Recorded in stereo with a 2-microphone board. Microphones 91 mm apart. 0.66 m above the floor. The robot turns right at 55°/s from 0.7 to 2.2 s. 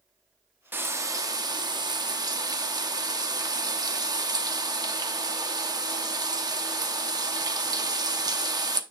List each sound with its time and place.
0.7 s frying: 150° right, 0.7 m; by 8.8 s 70° right, 0.7 m